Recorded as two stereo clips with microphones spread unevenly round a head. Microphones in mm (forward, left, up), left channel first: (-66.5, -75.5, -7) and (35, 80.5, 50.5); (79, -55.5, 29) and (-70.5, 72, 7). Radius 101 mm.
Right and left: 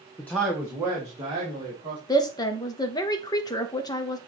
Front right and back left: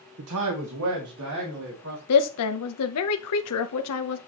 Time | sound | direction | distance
0.2 | a man speaking | 155° left | 0.9 m
2.1 | a woman speaking | 55° right | 0.6 m